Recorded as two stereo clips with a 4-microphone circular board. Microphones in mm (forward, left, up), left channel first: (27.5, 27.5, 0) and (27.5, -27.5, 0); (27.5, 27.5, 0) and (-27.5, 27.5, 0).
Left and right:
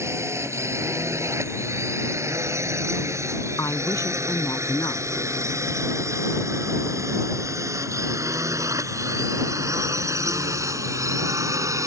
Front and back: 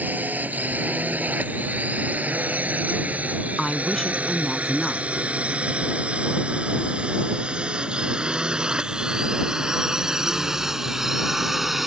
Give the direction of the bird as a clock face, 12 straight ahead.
No bird in this recording.